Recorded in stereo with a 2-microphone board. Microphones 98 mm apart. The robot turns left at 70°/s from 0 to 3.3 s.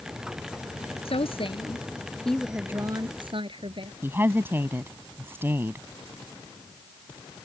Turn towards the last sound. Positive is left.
turn(degrees=-25)  # may be behind; listen again after turning